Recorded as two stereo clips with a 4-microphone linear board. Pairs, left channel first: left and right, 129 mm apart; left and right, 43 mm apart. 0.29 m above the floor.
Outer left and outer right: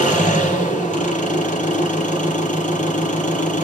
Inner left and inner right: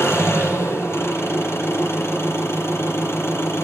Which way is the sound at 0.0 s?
80° left.